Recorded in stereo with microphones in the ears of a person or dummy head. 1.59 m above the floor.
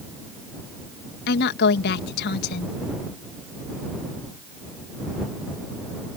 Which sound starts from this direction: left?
A woman speaking, at 1.3 s.